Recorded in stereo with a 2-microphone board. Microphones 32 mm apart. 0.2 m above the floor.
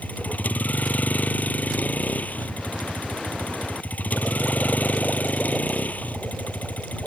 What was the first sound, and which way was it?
A vehicle, 60° left (ahead or behind).